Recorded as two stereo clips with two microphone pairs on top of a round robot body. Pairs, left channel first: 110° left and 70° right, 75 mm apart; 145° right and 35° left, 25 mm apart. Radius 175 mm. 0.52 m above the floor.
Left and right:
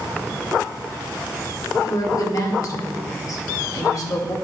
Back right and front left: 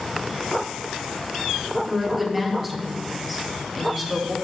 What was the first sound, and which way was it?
A woman speaking, 125° left.